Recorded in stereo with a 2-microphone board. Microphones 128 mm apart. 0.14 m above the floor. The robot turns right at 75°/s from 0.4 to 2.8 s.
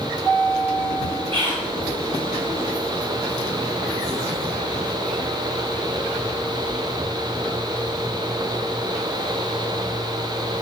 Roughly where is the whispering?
Right.